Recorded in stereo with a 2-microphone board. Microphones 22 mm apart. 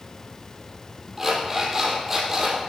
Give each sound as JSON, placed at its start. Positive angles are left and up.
{"t": 1.2, "sound": "an alarm clock", "side_deg": -15, "distance_m": 5.0}